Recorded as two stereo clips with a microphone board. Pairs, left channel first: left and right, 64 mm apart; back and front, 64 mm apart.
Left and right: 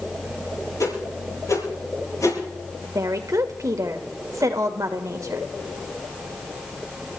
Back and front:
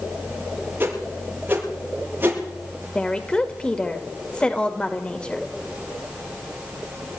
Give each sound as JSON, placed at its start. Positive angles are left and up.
{"t": 0.8, "sound": "a whoosh", "azimuth_deg": 60, "distance_m": 8.0}
{"t": 3.0, "sound": "a woman speaking", "azimuth_deg": -110, "distance_m": 1.9}